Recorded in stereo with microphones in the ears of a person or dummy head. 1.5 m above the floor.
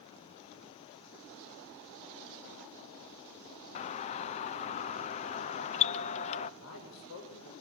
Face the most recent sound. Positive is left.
turn(degrees=75)  # may be behind; listen again after turning